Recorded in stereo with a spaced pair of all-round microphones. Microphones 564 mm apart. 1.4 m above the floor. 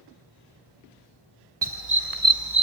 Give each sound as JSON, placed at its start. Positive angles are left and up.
{"t": 1.6, "sound": "a dog barking", "side_deg": -45, "distance_m": 2.0}